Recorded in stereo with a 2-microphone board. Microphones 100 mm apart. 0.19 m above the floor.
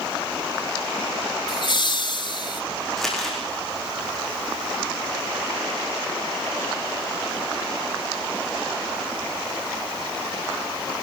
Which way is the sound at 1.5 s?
50° left (ahead or behind).